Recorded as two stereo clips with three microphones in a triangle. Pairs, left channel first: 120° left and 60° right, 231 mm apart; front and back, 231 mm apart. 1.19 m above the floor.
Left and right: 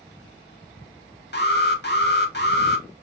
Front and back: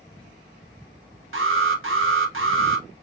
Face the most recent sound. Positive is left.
turn(degrees=160)